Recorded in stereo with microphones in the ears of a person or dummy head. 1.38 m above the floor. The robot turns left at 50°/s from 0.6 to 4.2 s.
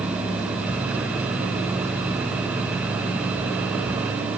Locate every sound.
Only background noise.